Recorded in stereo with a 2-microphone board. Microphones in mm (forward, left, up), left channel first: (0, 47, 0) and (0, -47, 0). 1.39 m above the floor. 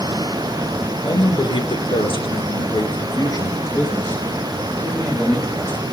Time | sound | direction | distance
1.0 | a man speaking | 50° left (ahead or behind) | 1.3 m